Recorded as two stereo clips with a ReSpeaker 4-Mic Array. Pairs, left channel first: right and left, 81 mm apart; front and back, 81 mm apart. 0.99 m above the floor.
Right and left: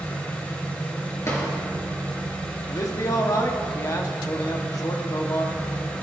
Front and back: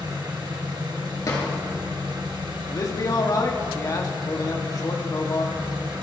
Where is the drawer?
40° right, 3.5 m.